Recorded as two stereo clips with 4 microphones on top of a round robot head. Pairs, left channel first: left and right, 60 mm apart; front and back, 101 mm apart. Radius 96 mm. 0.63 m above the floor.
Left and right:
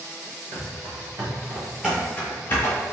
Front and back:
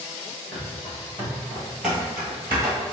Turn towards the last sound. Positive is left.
turn(degrees=120)